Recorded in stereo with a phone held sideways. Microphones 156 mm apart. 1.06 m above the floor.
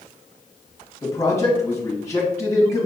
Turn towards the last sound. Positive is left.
turn(degrees=20)  # may be behind; listen again after turning